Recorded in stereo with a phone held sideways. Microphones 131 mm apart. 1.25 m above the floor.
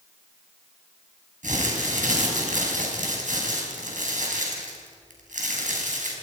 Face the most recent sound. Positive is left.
turn(degrees=-80)